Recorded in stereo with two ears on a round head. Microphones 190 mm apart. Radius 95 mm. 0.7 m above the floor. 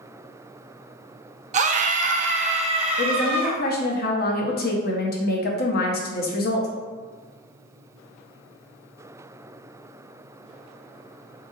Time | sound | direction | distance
1.5 | a scream | 35° right (ahead or behind) | 0.5 m
3.0 | a woman speaking | 45° left (ahead or behind) | 0.8 m